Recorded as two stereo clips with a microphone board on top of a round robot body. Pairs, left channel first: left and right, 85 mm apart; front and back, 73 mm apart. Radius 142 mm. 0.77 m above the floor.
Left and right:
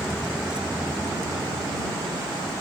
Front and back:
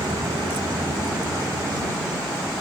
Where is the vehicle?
175° left; by 2.6 s 130° right.